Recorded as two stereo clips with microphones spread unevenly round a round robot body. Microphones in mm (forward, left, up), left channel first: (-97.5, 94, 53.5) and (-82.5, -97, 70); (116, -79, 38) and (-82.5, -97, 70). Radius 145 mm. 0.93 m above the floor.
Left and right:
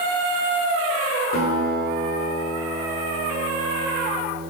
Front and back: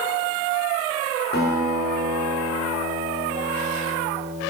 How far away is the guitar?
About 1.2 m.